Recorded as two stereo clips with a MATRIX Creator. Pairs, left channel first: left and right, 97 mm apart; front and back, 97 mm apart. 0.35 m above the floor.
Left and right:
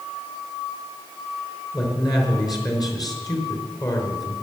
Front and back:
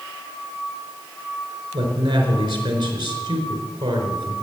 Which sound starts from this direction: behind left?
A man speaking, at 1.7 s.